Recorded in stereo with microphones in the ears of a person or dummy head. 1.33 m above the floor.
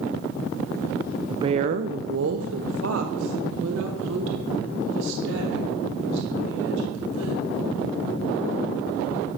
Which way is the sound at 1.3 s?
25° right (ahead or behind).